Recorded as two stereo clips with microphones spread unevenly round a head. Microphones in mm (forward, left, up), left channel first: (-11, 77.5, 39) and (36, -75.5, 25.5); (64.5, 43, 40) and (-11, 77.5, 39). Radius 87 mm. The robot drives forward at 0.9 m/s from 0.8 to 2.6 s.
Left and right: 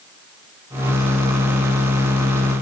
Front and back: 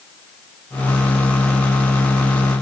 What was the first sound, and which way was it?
Only background noise.